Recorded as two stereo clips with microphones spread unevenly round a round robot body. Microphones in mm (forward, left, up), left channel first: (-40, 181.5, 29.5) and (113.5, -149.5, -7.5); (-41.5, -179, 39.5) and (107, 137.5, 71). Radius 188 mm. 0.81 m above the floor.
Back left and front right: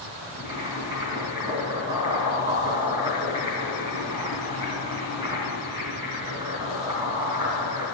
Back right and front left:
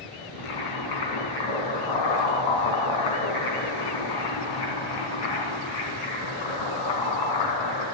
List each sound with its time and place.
0.4 s boiling: 140° right, 3.5 m